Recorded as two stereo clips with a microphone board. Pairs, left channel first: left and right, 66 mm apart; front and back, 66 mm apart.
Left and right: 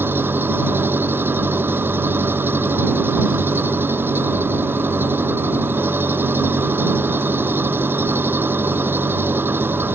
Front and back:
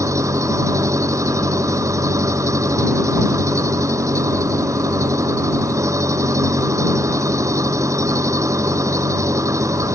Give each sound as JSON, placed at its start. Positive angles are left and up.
{"t": 0.0, "sound": "an engine running", "azimuth_deg": -145}